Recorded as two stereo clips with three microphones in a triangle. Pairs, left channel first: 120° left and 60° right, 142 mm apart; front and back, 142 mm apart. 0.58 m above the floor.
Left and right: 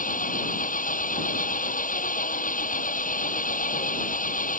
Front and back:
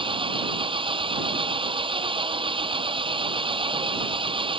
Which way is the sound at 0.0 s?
130° left.